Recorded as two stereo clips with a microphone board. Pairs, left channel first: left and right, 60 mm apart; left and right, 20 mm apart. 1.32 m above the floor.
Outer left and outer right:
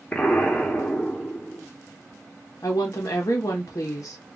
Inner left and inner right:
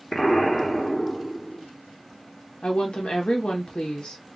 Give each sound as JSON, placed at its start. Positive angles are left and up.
{"t": 0.1, "sound": "an explosion", "side_deg": 20, "distance_m": 0.9}
{"t": 2.6, "sound": "a woman speaking", "side_deg": 65, "distance_m": 0.6}